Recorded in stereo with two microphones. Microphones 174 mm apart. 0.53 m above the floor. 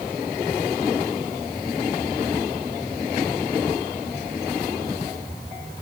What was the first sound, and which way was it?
Only background noise.